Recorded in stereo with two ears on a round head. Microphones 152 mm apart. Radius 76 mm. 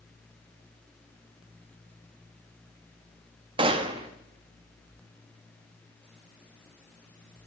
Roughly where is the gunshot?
Right.